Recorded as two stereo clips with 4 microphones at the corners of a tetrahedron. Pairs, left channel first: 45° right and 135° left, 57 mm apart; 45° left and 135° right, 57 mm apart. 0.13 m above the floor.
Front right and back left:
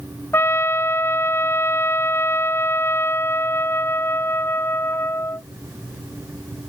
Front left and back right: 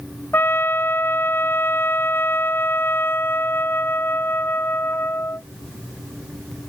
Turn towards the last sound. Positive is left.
turn(degrees=-5)